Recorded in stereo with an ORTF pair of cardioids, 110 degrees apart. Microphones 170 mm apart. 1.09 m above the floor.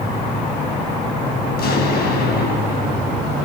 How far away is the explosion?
About 8.5 m.